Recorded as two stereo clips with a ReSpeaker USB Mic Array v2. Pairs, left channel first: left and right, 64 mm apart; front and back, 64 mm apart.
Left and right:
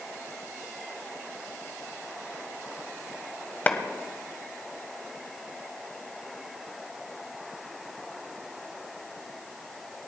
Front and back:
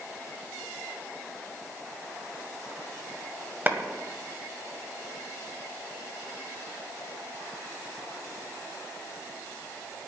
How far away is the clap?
About 1.7 m.